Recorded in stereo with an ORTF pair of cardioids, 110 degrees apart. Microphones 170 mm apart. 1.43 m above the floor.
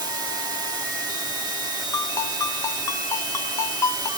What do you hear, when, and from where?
0.0 s running water: 25° right, 1.8 m
1.9 s a ringtone: 20° left, 1.1 m